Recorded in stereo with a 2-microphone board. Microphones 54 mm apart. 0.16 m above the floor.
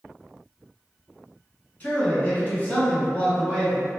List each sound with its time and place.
1.8 s a man speaking: 30° left (ahead or behind), 1.5 m; by 3.9 s 10° left (ahead or behind), 1.3 m